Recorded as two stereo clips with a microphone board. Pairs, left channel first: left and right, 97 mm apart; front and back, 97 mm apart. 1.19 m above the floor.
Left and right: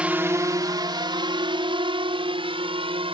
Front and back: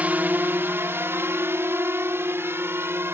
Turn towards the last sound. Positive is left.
turn(degrees=-115)